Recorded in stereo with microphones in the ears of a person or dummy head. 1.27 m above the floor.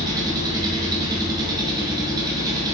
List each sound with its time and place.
0.0 s an engine running: 20° right (ahead or behind), 0.8 m